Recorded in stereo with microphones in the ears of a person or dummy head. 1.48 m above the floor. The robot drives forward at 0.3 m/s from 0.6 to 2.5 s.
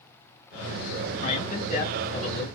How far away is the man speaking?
About 2 m.